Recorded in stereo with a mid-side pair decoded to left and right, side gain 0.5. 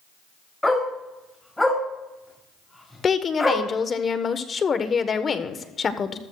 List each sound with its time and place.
0.6 s a dog barking: 10° left, 6 m
3.0 s a woman speaking: 40° left, 1.2 m